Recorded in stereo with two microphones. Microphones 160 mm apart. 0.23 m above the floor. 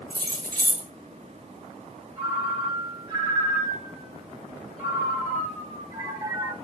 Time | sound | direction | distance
0.1 | keys jangling | 70° right (ahead or behind) | 2.5 m
2.2 | a ringtone | 25° right (ahead or behind) | 2.5 m